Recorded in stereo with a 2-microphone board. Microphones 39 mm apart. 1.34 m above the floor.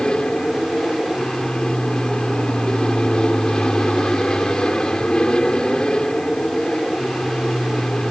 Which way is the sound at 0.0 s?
20° left (ahead or behind).